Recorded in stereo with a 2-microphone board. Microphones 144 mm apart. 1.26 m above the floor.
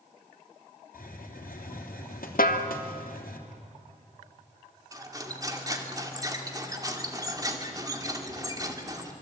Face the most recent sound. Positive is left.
turn(degrees=-25)  # may be behind; listen again after turning